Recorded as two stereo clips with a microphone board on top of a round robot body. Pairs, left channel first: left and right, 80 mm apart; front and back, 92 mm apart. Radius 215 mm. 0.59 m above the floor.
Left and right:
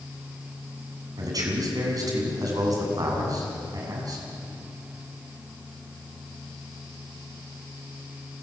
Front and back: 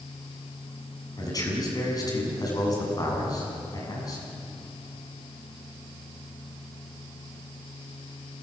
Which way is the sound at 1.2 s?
50° right.